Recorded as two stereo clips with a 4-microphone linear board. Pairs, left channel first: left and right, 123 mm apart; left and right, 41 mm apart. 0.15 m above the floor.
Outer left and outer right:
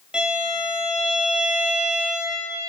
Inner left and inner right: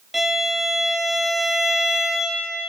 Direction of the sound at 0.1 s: 5° right (ahead or behind).